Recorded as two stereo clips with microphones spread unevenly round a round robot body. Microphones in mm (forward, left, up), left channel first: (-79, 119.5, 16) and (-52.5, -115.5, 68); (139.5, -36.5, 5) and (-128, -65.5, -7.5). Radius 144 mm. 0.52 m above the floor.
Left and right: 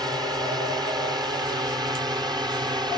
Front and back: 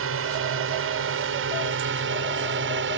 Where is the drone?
165° right; by 3.0 s 160° right.